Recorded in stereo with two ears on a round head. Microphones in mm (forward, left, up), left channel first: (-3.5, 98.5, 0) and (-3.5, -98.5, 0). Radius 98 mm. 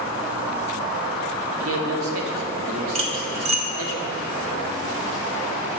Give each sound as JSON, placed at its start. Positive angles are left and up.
{"t": 1.6, "sound": "a man speaking", "side_deg": -75, "distance_m": 0.9}
{"t": 3.0, "sound": "cutlery clinking", "side_deg": -30, "distance_m": 0.7}